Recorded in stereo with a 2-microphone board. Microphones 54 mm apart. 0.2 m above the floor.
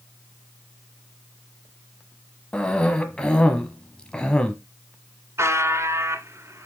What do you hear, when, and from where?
2.5 s a cough: 20° left (ahead or behind), 1.1 m
5.4 s a buzzer: 60° right (ahead or behind), 1.8 m